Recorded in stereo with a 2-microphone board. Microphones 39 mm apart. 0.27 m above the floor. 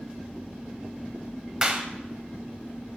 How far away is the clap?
About 0.8 m.